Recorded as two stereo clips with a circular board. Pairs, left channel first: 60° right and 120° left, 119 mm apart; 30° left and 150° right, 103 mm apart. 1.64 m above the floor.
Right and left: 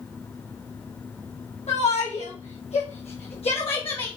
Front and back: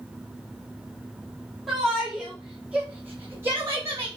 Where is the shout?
60° right, 3.5 m; by 4.1 s 95° right, 2 m.